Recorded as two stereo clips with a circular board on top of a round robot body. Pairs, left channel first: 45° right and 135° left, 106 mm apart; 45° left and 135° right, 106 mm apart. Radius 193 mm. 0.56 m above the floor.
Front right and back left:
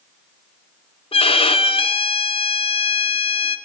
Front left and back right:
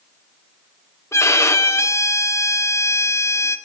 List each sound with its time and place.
1.1 s a violin: 20° right, 2.5 m